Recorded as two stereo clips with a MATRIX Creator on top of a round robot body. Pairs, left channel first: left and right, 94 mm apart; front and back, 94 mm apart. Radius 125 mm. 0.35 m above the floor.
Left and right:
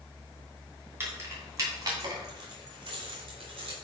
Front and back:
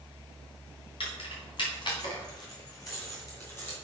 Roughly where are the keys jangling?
Ahead right.